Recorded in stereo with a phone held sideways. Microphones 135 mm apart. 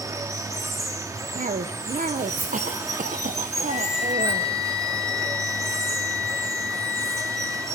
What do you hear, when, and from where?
0.0 s running water: 25° right (ahead or behind), 1.1 m
1.4 s a cough: 70° right (ahead or behind), 0.6 m
3.7 s a flute: 60° left (ahead or behind), 3 m